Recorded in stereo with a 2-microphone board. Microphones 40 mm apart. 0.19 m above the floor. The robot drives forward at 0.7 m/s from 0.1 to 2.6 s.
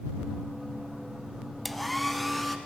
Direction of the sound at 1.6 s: Centre (ahead or behind).